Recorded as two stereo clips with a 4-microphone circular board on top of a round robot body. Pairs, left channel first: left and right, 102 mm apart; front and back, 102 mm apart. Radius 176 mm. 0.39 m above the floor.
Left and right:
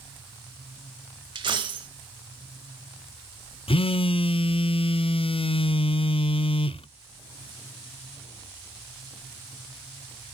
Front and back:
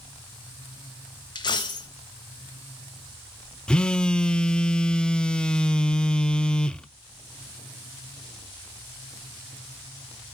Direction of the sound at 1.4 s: 45° right.